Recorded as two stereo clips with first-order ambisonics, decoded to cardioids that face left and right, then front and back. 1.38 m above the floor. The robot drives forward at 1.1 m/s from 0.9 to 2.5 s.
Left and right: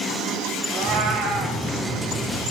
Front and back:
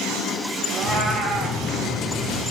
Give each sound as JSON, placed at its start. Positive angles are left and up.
{"t": 0.7, "sound": "a cat meowing", "azimuth_deg": -120, "distance_m": 1.7}